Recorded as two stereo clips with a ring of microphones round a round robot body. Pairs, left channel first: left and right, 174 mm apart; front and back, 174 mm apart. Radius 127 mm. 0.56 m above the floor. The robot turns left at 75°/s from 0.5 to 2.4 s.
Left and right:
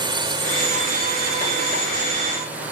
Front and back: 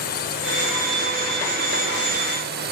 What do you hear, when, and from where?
0.0 s a drone: 30° right; by 2.7 s 170° right